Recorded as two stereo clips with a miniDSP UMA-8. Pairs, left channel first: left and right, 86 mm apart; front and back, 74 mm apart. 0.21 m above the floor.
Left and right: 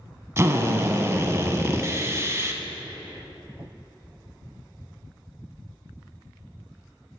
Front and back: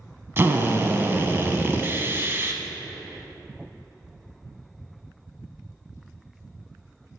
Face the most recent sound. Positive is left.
turn(degrees=-135)